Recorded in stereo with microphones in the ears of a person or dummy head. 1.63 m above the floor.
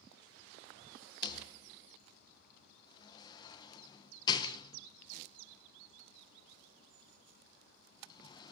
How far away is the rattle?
About 1.3 m.